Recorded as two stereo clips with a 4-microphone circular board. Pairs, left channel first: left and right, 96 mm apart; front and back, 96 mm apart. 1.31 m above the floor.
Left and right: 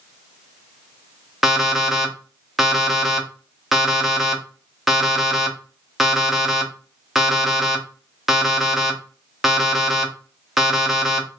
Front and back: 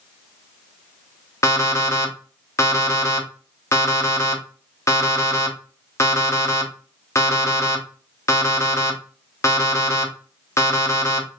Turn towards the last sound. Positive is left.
turn(degrees=-5)